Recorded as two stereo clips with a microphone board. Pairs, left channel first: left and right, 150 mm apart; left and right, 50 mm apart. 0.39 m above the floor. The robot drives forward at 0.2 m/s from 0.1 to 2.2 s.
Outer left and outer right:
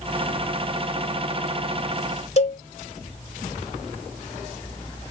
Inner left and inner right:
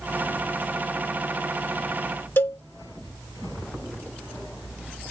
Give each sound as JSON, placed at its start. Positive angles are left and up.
{"t": 2.4, "sound": "a cowbell", "side_deg": 50, "distance_m": 1.0}